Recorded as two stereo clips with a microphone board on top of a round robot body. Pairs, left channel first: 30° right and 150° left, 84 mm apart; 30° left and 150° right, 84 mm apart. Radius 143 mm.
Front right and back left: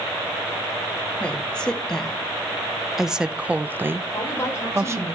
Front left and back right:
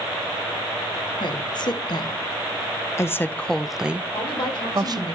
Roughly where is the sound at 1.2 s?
Ahead left.